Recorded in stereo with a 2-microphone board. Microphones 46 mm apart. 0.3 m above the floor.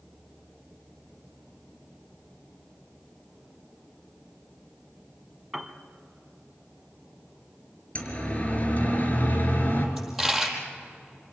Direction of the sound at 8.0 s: 30° left (ahead or behind).